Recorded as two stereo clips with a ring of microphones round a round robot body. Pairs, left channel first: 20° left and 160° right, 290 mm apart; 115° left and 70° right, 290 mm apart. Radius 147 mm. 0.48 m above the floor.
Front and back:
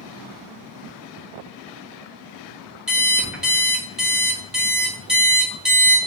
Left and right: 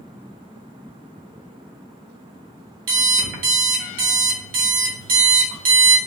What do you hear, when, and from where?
2.9 s an alarm clock: 70° right, 1.0 m